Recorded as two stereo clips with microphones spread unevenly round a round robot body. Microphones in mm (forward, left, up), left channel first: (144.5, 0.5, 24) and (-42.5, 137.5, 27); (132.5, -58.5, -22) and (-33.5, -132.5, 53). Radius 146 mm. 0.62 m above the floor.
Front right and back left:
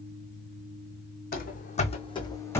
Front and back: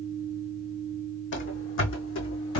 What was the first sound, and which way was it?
Running footsteps, 10° left.